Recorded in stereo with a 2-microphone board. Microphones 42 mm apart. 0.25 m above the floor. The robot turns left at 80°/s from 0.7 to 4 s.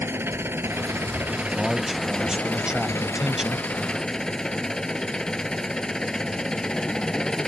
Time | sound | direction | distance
0.0 | an engine running | 80° right | ?
1.4 | a man speaking | centre (ahead or behind) | ?